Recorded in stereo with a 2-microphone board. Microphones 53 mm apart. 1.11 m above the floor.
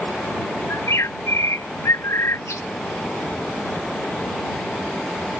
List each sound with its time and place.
0.7 s a bird: 75° left (ahead or behind)